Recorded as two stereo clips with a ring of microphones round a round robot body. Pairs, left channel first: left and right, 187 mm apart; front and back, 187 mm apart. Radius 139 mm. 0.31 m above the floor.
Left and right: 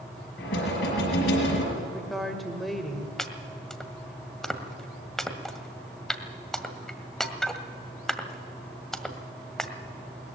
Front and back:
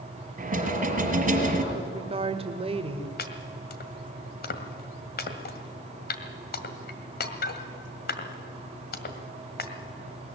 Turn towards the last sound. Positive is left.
turn(degrees=5)